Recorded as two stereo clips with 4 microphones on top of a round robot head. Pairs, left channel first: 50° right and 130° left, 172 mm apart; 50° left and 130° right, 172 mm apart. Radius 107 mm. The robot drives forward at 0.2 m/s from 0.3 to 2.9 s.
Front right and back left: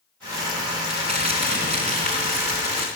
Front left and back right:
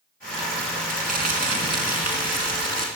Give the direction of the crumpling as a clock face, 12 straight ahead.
6 o'clock.